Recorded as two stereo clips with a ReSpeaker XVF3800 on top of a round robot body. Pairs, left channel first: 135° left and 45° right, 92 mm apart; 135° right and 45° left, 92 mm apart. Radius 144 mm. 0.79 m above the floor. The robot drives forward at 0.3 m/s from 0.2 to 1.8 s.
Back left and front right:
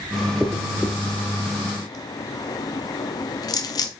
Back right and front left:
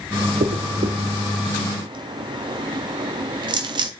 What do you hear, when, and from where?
0.4 s a dropped coin: 50° left, 0.7 m; by 3.9 s 85° left, 0.6 m